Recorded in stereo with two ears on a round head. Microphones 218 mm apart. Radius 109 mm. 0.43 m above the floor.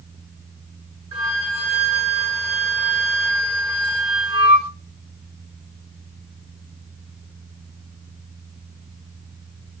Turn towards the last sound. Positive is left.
turn(degrees=-20)  # may be behind; listen again after turning